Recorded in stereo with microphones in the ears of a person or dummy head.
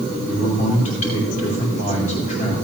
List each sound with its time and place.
0.2 s a man speaking: 45° left (ahead or behind), 4.5 m